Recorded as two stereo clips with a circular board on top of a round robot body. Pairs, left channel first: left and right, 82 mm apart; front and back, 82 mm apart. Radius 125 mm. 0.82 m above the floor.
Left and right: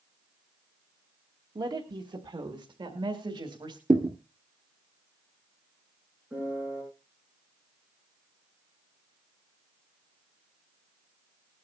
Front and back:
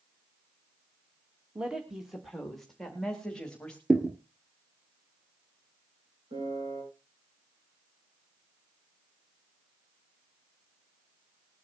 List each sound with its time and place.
1.6 s a woman speaking: 105° right, 1.8 m; by 3.8 s 80° right, 3 m
3.9 s a thud: 100° right, 0.9 m
6.3 s a piano: 160° right, 8 m